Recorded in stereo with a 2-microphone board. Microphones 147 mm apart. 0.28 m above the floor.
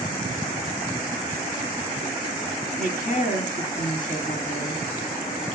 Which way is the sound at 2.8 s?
55° left (ahead or behind).